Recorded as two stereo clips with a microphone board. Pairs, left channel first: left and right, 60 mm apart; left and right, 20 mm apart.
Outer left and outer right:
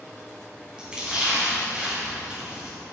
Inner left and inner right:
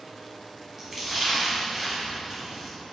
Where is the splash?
15° right (ahead or behind), 4 m.